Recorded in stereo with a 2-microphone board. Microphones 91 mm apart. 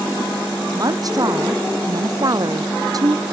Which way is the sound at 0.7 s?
40° right (ahead or behind).